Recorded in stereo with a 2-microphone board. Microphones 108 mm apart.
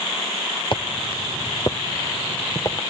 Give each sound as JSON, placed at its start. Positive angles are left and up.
{"t": 0.7, "sound": "footsteps", "side_deg": 45, "distance_m": 0.9}